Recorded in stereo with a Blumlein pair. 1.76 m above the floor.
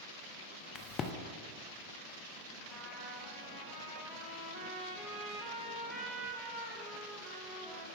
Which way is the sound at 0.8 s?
30° left.